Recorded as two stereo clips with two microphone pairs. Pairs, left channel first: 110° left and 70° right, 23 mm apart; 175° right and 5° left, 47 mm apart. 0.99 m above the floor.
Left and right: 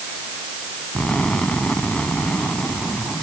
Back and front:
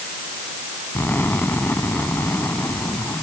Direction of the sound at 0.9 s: 145° left.